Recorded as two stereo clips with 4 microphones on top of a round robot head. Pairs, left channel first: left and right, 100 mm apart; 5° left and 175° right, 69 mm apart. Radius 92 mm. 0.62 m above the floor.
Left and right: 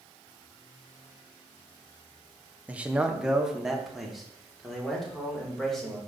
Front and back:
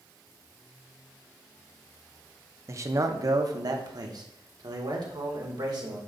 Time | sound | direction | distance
2.7 | a man speaking | 160° right | 0.8 m